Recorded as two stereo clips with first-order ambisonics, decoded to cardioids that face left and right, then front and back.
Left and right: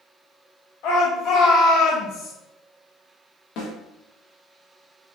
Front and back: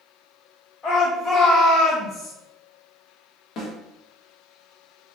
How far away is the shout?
About 2 m.